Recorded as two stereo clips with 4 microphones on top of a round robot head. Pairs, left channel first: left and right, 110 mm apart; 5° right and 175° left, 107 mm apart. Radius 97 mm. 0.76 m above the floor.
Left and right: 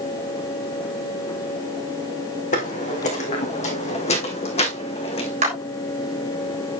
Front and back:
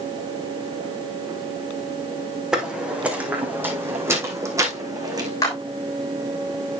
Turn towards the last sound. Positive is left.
turn(degrees=-70)